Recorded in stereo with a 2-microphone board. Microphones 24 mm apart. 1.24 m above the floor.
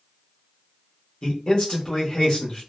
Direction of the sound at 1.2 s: 35° left (ahead or behind).